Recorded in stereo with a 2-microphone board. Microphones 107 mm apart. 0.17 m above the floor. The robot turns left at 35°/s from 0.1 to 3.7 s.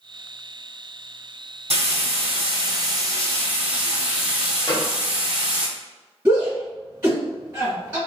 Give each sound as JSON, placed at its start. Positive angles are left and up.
{"t": 1.7, "sound": "frying", "azimuth_deg": -95, "distance_m": 1.2}
{"t": 4.7, "sound": "a gunshot", "side_deg": 40, "distance_m": 1.1}
{"t": 6.2, "sound": "a shout", "side_deg": -20, "distance_m": 1.5}